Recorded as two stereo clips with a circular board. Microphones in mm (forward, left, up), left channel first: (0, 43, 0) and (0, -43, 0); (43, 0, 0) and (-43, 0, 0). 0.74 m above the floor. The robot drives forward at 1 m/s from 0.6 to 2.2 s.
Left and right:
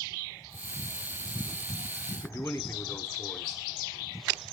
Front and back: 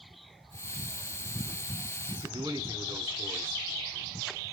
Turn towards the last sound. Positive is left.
turn(degrees=150)